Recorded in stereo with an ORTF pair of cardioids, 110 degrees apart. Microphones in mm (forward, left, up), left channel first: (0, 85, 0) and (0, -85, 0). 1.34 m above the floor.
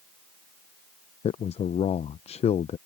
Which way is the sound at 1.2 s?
40° left.